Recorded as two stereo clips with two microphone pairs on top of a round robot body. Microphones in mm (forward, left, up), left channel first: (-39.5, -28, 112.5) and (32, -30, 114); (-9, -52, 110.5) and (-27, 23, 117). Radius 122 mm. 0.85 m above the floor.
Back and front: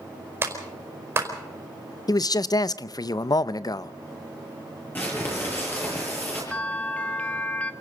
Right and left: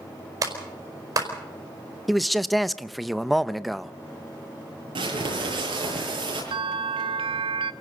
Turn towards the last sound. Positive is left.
turn(degrees=105)